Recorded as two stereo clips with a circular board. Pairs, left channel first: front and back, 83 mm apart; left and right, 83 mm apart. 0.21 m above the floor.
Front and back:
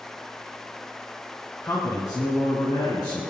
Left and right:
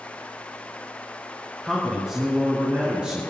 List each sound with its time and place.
1.6 s a man speaking: straight ahead, 2 m; by 3.3 s 15° right, 3.5 m